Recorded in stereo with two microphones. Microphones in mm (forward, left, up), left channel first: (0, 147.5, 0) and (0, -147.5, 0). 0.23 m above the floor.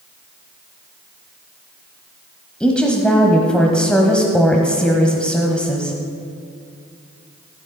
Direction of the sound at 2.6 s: 5° left (ahead or behind).